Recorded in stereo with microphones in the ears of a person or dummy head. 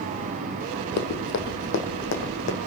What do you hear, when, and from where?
1.0 s running footsteps: 55° left (ahead or behind), 2.5 m